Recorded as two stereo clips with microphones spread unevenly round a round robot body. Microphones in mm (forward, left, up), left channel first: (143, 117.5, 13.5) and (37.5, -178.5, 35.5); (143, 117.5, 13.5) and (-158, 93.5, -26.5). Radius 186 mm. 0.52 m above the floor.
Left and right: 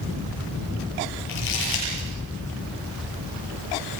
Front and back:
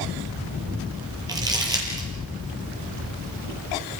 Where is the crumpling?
105° left, 9 m.